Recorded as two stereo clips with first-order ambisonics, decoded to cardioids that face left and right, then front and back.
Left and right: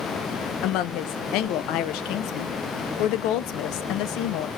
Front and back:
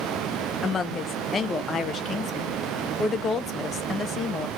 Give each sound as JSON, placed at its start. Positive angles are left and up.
{"t": 0.6, "sound": "a woman speaking", "azimuth_deg": 75, "distance_m": 0.5}